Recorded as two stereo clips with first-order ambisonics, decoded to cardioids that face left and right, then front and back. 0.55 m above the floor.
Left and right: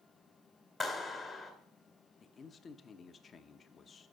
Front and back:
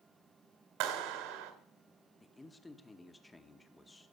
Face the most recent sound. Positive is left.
turn(degrees=65)